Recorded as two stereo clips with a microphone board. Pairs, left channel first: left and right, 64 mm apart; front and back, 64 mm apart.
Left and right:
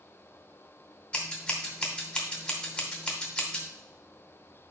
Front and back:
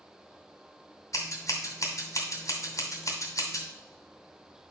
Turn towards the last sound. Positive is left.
turn(degrees=20)